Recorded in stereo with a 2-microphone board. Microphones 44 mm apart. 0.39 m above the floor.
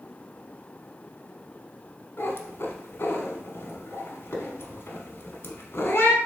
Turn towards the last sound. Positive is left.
turn(degrees=70)  # may be behind; listen again after turning